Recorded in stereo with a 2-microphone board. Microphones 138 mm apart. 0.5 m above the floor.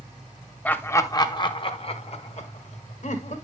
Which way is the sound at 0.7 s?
10° left (ahead or behind).